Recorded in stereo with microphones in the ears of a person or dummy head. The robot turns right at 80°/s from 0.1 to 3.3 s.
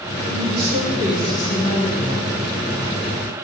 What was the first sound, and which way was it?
A woman speaking, 75° right.